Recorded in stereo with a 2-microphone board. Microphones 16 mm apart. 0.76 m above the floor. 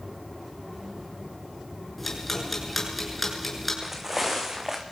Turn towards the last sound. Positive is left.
turn(degrees=-30)  # may be behind; listen again after turning